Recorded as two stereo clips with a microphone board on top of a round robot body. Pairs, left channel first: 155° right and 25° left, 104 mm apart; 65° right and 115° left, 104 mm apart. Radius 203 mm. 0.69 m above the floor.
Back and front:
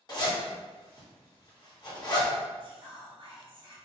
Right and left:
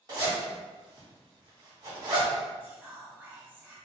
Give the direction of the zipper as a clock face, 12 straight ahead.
7 o'clock.